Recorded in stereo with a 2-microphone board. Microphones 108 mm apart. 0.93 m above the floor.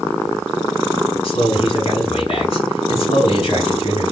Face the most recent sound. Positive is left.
turn(degrees=55)  # may be behind; listen again after turning